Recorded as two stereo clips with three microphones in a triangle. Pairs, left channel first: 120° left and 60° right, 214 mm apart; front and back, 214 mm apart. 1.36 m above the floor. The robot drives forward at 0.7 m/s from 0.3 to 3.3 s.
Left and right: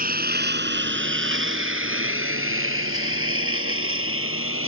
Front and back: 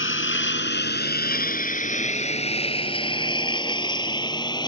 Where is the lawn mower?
15° right; by 4.7 s 70° right.